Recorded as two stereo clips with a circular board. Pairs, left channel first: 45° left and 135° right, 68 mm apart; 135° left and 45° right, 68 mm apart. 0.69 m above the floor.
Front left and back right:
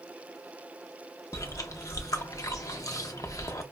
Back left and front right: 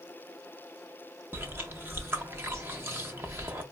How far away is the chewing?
About 0.6 m.